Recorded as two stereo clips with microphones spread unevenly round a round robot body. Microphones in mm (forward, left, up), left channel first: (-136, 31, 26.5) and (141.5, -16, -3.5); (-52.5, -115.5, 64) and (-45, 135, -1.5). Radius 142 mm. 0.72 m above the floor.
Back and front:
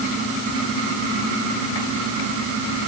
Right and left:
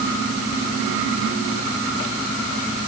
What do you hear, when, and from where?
Only background noise.